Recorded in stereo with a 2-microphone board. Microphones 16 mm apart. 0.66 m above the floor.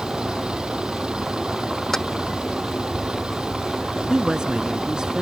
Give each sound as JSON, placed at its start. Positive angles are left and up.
{"t": 0.0, "sound": "a vehicle", "side_deg": -85}
{"t": 1.9, "sound": "keys jangling", "side_deg": 25}
{"t": 4.1, "sound": "a woman speaking", "side_deg": -50}